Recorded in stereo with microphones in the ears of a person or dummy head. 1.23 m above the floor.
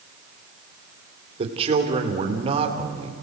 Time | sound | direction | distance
1.4 | a man speaking | 35° right (ahead or behind) | 3 m